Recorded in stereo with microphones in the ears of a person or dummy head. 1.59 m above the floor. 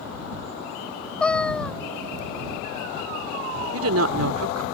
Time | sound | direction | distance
1.2 | a cat meowing | centre (ahead or behind) | ?
3.7 | a woman speaking | 75° right (ahead or behind) | ?